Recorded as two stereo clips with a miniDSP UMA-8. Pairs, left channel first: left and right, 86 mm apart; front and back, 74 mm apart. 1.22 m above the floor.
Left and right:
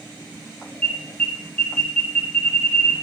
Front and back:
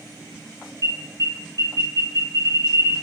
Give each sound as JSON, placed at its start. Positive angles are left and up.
{"t": 0.8, "sound": "an alarm", "azimuth_deg": 155, "distance_m": 2.5}